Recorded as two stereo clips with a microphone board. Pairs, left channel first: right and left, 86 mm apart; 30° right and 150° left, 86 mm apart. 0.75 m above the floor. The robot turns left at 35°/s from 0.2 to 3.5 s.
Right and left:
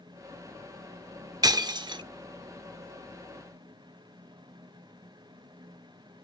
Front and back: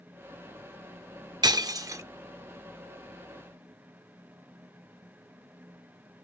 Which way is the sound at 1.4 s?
120° left.